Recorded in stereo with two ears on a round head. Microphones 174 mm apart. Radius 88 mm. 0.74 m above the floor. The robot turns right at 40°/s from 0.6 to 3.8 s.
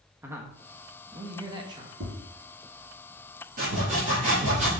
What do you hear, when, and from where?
0.2 s a man speaking: 10° right (ahead or behind), 1.1 m; by 1.9 s 25° right (ahead or behind), 1.1 m
2.0 s tapping: 60° right (ahead or behind), 3 m; by 2.2 s 70° right (ahead or behind), 3 m
3.6 s sawing: 45° right (ahead or behind), 4 m; by 4.7 s 35° right (ahead or behind), 4 m